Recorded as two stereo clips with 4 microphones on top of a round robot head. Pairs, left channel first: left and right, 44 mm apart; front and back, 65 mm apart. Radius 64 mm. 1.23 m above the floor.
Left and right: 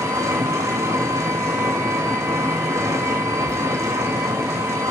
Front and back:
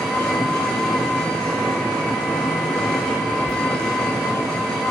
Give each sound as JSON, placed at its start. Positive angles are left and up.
{"t": 0.0, "sound": "an engine running", "azimuth_deg": -80, "distance_m": 1.8}
{"t": 3.5, "sound": "a thud", "azimuth_deg": -55, "distance_m": 3.5}